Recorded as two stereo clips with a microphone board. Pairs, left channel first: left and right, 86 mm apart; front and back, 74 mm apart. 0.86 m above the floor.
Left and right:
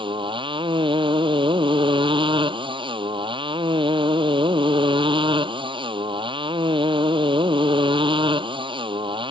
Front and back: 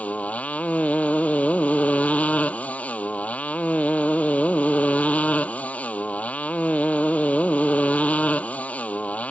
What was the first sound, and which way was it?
A motorcycle, 75° right.